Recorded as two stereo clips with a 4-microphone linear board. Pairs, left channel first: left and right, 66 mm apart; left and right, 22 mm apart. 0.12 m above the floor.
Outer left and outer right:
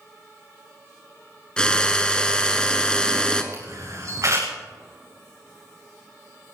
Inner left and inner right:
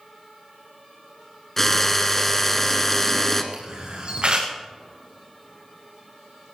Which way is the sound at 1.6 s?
15° left (ahead or behind).